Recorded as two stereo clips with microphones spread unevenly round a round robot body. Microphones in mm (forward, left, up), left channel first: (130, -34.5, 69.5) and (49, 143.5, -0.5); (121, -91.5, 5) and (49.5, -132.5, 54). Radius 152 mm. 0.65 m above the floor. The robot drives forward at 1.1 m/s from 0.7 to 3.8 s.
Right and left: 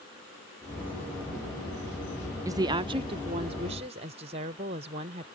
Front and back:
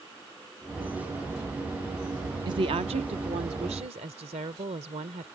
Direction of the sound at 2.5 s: 145° left.